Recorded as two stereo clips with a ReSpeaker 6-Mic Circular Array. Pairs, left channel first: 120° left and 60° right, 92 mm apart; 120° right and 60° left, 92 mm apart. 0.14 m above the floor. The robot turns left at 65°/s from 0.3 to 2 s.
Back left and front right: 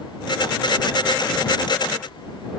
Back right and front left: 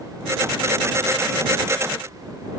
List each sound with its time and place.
Only background noise.